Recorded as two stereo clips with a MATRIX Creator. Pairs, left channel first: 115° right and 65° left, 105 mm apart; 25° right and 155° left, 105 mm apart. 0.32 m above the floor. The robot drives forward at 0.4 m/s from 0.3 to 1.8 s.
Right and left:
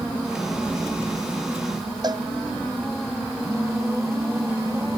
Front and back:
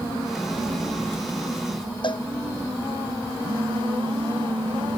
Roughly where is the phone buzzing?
Behind left.